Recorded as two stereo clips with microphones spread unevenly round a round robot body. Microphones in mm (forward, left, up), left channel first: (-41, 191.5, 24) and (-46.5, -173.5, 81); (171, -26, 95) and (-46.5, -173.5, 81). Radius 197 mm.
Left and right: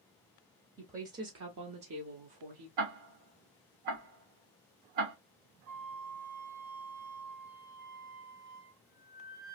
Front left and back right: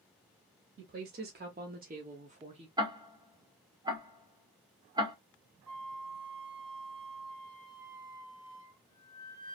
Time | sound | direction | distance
0.8 | a woman speaking | 170° right | 0.9 m
2.8 | ticking | 75° right | 1.3 m
5.7 | a flute | 70° right | 2 m